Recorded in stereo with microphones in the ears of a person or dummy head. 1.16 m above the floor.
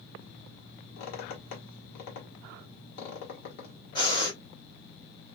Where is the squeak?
55° left (ahead or behind), 1.3 m.